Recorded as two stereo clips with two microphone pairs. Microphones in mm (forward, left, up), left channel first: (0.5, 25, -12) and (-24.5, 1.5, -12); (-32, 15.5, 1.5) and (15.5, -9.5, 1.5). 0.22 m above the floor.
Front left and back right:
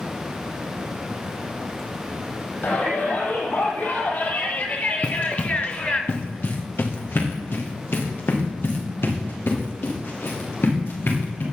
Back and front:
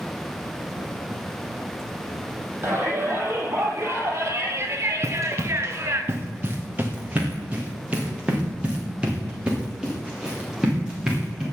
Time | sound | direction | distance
2.6 | a shout | 15° left | 7 m
5.0 | running footsteps | straight ahead | 2 m